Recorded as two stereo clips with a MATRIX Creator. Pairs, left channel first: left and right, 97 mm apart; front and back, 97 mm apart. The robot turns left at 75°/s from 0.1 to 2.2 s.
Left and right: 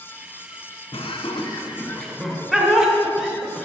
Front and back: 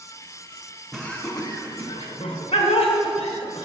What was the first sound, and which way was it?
Laughter, 90° left.